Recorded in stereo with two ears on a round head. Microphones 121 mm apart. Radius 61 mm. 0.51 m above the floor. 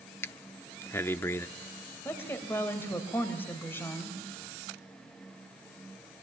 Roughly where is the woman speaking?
Centre.